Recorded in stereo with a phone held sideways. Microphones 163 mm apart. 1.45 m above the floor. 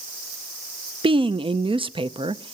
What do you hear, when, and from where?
1.0 s a woman speaking: 30° right (ahead or behind), 0.6 m